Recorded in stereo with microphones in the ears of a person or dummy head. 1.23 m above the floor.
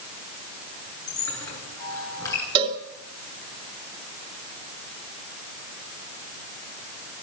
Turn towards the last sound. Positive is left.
turn(degrees=-35)  # may be behind; listen again after turning